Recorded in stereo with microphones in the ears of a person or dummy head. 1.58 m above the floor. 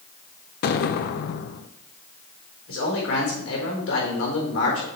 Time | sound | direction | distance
0.6 | an explosion | 55° left (ahead or behind) | 0.5 m
2.7 | a man speaking | 85° left | 4.5 m